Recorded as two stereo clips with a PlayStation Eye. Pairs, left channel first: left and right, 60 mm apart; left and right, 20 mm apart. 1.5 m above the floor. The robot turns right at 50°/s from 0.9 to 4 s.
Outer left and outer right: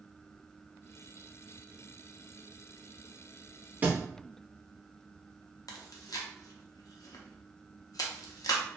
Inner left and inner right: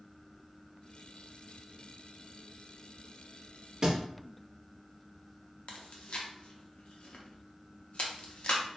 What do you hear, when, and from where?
3.8 s a thud: 30° right (ahead or behind), 0.9 m
5.7 s chewing: 70° left (ahead or behind), 0.5 m